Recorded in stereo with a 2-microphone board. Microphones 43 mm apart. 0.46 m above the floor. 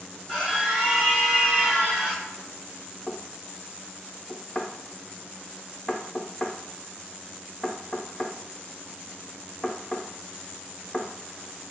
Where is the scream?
20° right (ahead or behind), 1.5 m; by 2.3 s 15° right (ahead or behind), 1.4 m.